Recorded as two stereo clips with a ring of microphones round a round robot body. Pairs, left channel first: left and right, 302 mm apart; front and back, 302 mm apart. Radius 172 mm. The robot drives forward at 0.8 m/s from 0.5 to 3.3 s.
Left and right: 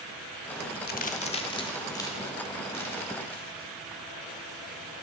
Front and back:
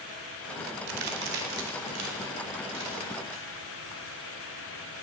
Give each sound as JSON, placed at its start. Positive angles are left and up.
{"t": 0.9, "sound": "a crack", "azimuth_deg": 150, "distance_m": 0.6}